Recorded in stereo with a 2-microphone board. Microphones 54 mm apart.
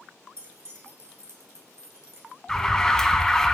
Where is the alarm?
10° left (ahead or behind), 0.7 m.